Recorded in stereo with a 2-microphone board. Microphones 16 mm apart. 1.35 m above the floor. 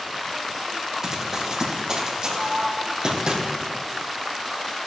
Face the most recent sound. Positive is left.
turn(degrees=-35)  # may be behind; listen again after turning